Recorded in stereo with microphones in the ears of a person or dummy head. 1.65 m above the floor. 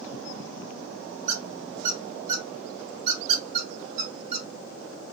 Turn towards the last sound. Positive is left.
turn(degrees=-50)  # may be behind; listen again after turning